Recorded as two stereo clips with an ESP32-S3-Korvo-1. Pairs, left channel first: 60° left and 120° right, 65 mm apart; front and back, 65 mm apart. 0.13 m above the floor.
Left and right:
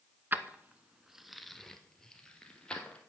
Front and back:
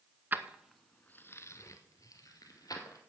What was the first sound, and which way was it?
Keys jangling, 150° right.